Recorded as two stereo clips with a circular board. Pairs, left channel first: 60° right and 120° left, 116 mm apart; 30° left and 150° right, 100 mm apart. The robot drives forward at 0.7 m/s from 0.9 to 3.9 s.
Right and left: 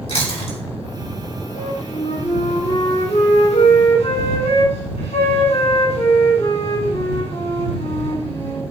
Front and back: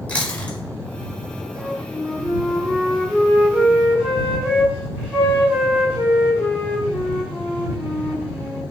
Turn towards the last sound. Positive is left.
turn(degrees=-75)